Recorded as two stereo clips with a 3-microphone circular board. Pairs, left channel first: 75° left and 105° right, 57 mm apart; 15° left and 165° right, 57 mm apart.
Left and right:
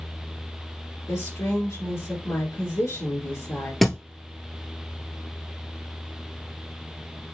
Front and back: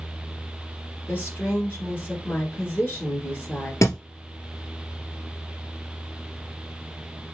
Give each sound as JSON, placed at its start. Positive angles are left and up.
{"t": 1.1, "sound": "a woman speaking", "azimuth_deg": 65, "distance_m": 2.5}
{"t": 3.8, "sound": "a thud", "azimuth_deg": -10, "distance_m": 1.0}